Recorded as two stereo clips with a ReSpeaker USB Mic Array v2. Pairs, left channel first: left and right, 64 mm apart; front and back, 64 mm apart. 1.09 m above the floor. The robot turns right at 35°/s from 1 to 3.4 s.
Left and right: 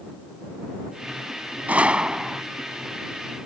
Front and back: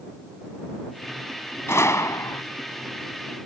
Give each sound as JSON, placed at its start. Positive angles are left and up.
{"t": 1.7, "sound": "a gunshot", "azimuth_deg": -30}